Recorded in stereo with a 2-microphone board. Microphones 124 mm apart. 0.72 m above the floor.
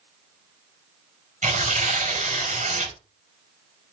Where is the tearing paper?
75° right (ahead or behind), 4 m.